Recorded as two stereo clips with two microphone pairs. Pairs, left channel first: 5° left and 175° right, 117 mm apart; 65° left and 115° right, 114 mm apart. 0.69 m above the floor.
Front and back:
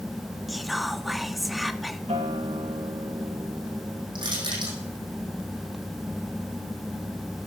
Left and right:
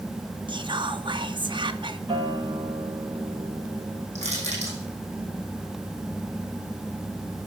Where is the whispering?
85° right, 0.7 m.